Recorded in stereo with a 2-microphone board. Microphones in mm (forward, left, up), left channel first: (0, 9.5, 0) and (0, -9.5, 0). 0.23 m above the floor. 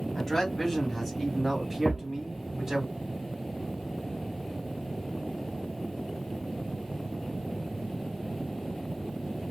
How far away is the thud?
About 1.0 m.